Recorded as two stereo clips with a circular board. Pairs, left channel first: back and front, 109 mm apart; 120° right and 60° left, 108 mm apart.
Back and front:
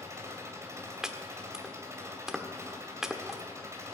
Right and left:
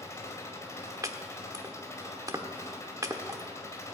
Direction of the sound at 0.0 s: 60° right.